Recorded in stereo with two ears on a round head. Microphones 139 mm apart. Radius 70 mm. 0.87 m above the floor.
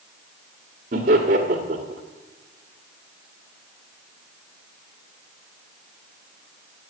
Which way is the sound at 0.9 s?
55° right (ahead or behind).